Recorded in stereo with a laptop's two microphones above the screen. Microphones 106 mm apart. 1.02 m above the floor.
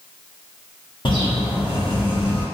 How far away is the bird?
About 0.8 m.